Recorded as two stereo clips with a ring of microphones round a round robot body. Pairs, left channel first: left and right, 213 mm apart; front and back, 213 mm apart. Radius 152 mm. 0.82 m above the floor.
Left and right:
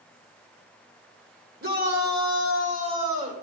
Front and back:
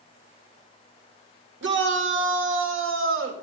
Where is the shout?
150° right, 2 m; by 3.3 s 160° right, 3.5 m.